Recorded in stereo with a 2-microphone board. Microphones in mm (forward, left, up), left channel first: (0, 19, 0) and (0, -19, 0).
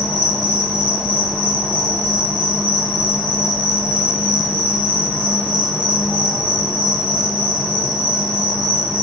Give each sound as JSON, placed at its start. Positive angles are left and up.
{"t": 0.0, "sound": "an insect", "side_deg": -70, "distance_m": 1.4}